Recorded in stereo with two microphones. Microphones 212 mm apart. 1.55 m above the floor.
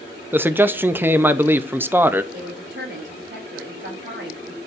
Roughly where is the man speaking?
Centre.